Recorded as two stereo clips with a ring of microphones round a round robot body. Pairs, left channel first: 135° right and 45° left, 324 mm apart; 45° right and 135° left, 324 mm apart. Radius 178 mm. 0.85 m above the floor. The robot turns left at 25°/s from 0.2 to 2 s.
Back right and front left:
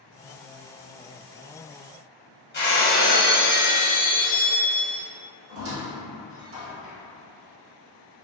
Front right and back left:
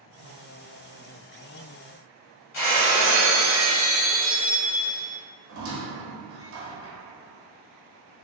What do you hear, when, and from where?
2.5 s breaking glass: 75° right, 1.1 m
5.5 s a squeak: 90° left, 0.7 m